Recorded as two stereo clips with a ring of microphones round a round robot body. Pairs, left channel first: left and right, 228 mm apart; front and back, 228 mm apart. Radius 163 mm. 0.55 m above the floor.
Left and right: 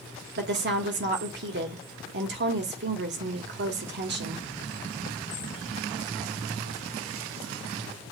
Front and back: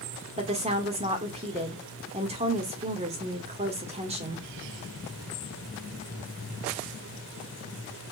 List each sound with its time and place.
0.4 s a woman speaking: 120° right, 1.8 m